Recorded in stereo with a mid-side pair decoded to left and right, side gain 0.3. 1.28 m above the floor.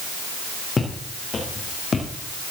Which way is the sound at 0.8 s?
50° left.